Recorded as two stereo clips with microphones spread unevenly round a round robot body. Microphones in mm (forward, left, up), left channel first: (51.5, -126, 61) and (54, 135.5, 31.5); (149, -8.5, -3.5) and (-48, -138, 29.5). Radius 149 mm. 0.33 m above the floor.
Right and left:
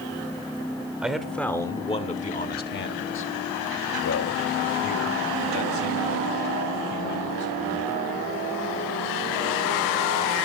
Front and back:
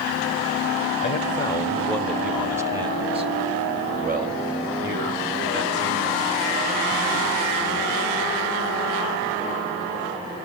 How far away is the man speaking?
About 1.2 m.